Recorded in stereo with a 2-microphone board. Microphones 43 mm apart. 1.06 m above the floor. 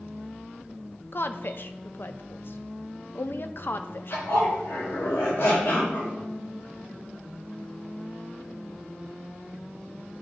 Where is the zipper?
80° left, 4 m.